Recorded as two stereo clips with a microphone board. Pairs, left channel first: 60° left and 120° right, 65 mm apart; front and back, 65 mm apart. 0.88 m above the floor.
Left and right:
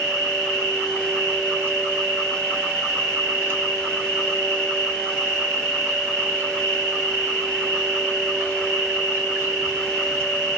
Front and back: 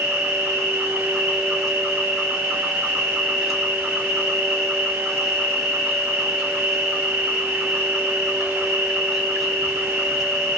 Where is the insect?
100° right, 1.7 m.